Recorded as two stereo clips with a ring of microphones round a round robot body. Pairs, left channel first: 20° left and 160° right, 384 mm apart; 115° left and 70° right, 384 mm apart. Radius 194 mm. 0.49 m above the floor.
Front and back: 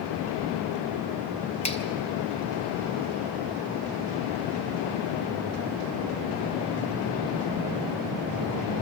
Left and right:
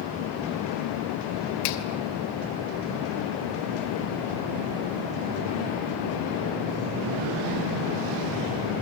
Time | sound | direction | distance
1.6 | a finger snap | 95° left | 2.5 m